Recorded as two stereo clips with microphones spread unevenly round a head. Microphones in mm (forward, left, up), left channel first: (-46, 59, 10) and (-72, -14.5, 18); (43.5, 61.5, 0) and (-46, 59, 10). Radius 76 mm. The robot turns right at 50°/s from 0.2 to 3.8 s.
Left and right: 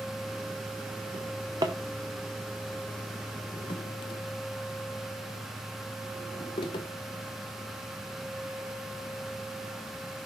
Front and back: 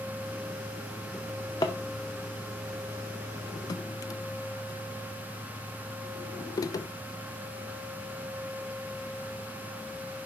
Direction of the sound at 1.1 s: 85° right.